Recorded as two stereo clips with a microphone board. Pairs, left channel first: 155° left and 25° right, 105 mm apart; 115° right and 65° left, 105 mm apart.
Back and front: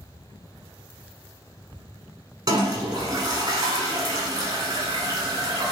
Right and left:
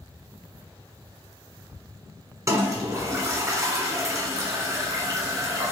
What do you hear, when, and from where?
2.5 s a toilet flushing: 15° left, 1.4 m